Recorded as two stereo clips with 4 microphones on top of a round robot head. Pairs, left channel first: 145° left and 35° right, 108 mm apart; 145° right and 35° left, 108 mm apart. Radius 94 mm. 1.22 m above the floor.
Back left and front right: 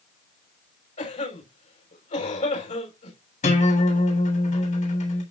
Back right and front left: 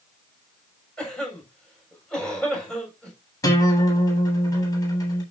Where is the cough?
130° left, 6.5 m.